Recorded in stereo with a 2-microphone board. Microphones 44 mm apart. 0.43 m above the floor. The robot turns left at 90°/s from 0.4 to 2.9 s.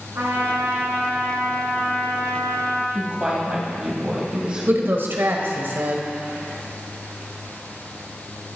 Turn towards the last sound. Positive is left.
turn(degrees=-60)  # may be behind; listen again after turning